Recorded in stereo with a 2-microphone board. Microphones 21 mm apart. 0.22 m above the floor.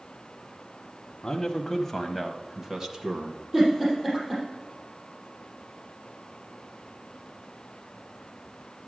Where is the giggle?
25° right (ahead or behind), 5.5 m.